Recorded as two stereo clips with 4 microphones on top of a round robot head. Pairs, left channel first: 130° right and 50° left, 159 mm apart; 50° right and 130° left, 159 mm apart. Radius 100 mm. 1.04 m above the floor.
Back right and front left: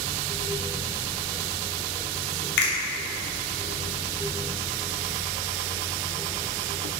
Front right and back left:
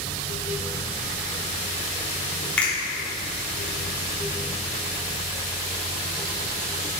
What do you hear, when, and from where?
2.6 s a finger snap: 135° right, 3 m